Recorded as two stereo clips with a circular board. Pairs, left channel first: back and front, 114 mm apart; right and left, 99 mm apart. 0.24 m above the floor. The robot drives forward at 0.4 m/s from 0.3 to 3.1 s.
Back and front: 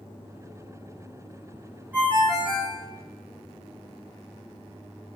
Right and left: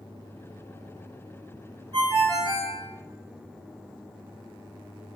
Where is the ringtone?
75° left, 1.2 m; by 2.8 s 100° left, 1.2 m.